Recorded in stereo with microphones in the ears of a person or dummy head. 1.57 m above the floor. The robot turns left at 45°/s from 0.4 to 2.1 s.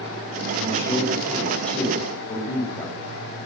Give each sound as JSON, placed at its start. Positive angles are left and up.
{"t": 0.6, "sound": "a man speaking", "side_deg": -40, "distance_m": 9.5}